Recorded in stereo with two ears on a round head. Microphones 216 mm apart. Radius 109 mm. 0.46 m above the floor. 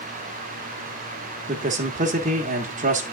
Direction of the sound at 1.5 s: 30° right (ahead or behind).